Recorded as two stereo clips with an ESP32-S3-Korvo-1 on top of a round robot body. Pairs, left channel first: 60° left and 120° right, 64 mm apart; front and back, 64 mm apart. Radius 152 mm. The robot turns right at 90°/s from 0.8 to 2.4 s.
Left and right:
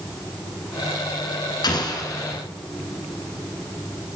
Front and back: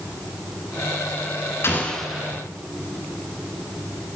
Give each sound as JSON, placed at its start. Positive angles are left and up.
{"t": 1.6, "sound": "an explosion", "azimuth_deg": 55, "distance_m": 2.5}